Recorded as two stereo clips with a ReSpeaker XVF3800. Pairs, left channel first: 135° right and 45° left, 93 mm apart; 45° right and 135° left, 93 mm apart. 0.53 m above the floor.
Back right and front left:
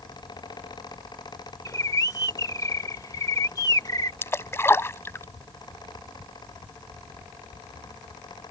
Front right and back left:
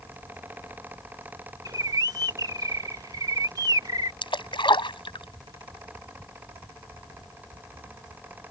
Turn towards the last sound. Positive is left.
turn(degrees=-70)